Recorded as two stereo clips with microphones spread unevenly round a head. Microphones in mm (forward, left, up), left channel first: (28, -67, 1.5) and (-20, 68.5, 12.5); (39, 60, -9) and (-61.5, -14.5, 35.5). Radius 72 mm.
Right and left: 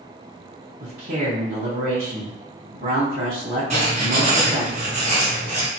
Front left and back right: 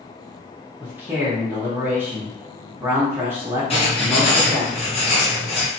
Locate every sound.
0.8 s a man speaking: 130° left, 0.9 m
3.7 s writing: 65° left, 1.3 m